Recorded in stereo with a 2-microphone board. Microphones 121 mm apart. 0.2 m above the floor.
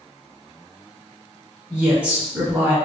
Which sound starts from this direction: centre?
A woman speaking, at 1.7 s.